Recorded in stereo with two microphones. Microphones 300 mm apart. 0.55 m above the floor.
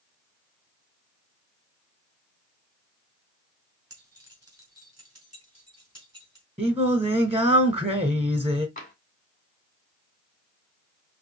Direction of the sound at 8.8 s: 25° left (ahead or behind).